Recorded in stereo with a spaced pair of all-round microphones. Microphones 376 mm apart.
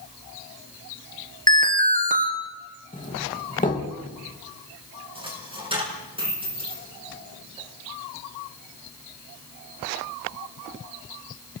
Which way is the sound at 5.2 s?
15° right (ahead or behind).